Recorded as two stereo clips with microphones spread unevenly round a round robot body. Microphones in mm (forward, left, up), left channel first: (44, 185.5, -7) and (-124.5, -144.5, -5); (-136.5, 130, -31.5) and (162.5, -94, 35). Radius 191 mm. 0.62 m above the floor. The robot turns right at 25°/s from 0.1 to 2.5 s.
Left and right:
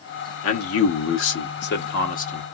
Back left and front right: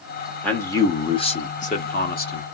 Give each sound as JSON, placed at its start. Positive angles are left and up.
{"t": 0.4, "sound": "a man speaking", "azimuth_deg": 75, "distance_m": 0.6}